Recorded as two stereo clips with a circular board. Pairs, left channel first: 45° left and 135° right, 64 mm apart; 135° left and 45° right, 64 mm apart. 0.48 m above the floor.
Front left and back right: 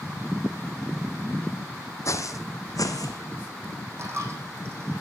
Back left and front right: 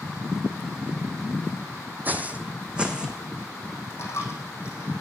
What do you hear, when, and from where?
2.0 s footsteps: 15° left, 1.1 m; by 3.2 s 35° left, 1.7 m
4.0 s a dropped coin: straight behind, 4 m